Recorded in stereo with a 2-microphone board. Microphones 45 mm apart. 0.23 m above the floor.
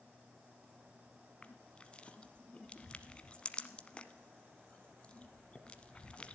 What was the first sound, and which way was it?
Crushing, 25° left (ahead or behind).